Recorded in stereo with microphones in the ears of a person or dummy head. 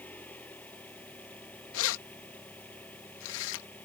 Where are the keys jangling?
70° left (ahead or behind).